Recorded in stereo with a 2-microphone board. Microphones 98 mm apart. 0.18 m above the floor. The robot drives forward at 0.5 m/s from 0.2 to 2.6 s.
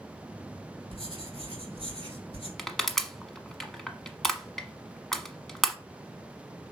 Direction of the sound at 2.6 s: 5° left (ahead or behind).